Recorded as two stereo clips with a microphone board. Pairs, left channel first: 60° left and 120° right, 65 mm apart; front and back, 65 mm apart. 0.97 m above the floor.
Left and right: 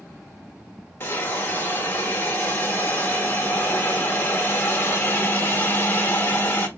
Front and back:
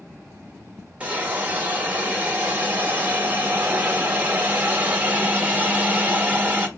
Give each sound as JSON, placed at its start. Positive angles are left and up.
{"t": 1.0, "sound": "a hiss", "azimuth_deg": 115, "distance_m": 1.1}